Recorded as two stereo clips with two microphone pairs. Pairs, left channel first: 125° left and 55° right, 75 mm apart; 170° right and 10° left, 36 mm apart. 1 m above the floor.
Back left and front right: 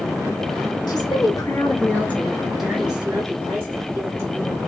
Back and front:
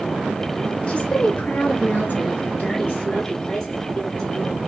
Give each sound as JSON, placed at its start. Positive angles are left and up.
{"t": 0.9, "sound": "a woman speaking", "azimuth_deg": 135, "distance_m": 1.1}